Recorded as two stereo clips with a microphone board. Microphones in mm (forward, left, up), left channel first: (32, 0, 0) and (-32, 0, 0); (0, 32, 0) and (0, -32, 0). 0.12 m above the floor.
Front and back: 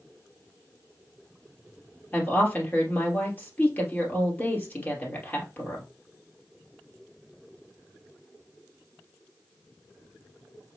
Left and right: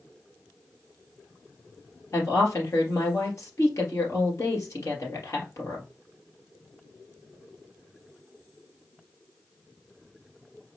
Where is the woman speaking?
60° left, 3 m.